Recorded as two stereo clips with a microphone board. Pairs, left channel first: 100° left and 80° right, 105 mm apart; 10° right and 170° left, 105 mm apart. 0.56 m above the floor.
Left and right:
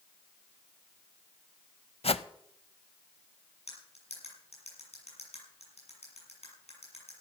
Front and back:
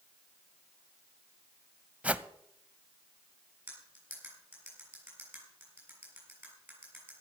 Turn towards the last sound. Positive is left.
turn(degrees=100)